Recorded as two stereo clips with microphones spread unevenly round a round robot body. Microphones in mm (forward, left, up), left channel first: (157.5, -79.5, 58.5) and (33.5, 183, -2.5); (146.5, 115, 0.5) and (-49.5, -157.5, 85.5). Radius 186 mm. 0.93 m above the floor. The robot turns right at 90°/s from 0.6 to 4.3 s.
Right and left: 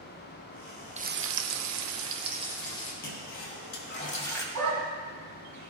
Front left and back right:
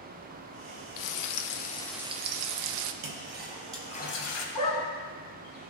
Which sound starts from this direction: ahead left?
Frying, at 1.0 s.